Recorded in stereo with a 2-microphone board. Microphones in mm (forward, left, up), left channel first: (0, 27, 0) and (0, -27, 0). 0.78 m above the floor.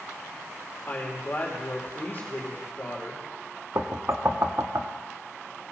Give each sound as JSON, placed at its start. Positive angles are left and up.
{"t": 0.9, "sound": "a woman speaking", "side_deg": 40, "distance_m": 2.5}
{"t": 3.8, "sound": "knocking", "side_deg": -55, "distance_m": 0.7}